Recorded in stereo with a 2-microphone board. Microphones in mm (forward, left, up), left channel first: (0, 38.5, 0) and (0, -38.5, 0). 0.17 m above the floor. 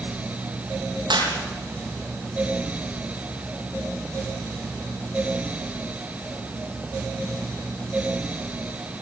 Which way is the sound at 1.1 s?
75° right (ahead or behind).